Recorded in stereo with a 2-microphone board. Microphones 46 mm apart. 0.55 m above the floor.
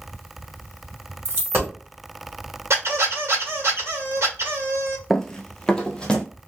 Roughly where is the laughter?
I don't hear laughter.